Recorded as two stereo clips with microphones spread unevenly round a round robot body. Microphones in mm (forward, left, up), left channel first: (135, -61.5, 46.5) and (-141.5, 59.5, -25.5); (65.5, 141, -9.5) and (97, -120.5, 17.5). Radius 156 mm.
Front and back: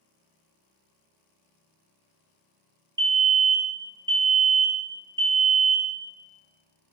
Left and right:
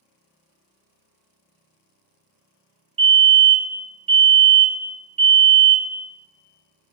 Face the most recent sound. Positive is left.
turn(degrees=-150)